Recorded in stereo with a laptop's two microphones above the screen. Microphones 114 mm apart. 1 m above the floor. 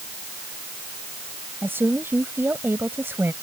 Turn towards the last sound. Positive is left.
turn(degrees=-20)  # may be behind; listen again after turning